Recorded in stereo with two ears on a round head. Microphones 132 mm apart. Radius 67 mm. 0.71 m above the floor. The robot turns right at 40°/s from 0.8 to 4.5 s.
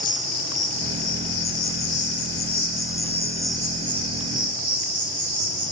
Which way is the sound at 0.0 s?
70° left.